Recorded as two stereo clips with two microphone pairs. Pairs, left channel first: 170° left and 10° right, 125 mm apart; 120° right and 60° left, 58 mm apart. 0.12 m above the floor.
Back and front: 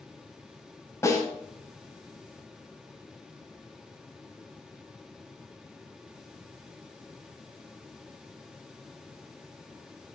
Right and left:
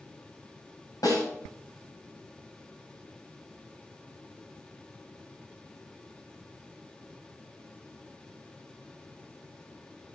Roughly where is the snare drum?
Behind right.